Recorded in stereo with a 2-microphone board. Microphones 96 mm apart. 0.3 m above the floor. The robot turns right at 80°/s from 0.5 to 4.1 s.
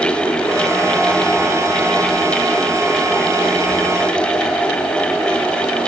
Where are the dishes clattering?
I don't hear dishes clattering.